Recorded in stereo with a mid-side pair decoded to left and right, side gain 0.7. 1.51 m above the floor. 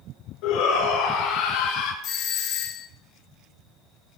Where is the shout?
70° left, 5.5 m; by 1.9 s 75° left, 4 m.